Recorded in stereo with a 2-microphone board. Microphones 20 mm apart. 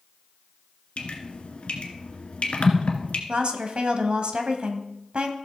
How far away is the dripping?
About 1.6 m.